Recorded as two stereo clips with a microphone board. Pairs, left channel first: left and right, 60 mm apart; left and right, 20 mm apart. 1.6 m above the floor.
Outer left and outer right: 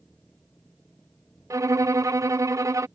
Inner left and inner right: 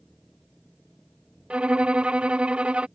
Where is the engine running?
30° left (ahead or behind).